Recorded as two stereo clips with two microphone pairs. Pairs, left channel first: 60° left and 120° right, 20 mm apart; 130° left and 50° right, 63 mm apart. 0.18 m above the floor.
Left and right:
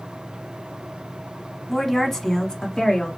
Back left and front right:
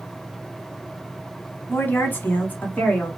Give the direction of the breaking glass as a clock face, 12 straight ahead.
No breaking glass in this recording.